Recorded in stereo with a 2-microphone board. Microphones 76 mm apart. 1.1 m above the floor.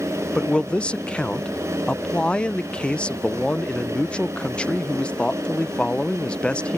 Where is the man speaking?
15° left (ahead or behind).